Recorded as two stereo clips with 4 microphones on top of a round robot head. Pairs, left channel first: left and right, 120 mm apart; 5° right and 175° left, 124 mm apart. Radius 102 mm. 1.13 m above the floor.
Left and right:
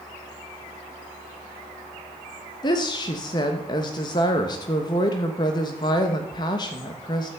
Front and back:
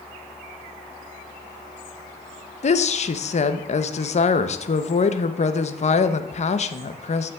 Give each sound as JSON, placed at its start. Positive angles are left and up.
{"t": 2.6, "sound": "a woman speaking", "azimuth_deg": 30, "distance_m": 1.0}